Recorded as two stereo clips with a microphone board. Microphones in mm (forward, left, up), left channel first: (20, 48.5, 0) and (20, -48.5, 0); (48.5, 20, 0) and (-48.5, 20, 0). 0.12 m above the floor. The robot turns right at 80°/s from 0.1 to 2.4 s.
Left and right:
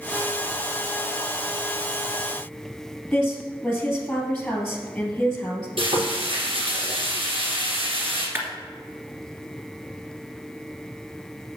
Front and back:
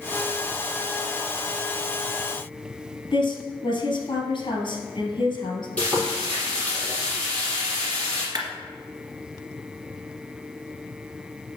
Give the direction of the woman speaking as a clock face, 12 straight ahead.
12 o'clock.